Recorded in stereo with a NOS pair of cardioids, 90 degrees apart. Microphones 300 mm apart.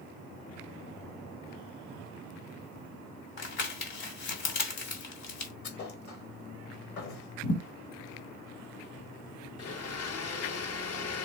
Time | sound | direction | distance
3.4 | crumpling | 65° left | 3 m
5.6 | a thud | 70° left | 3 m
7.4 | a thud | 50° left | 1.9 m
9.6 | a blender | 55° left | 1.0 m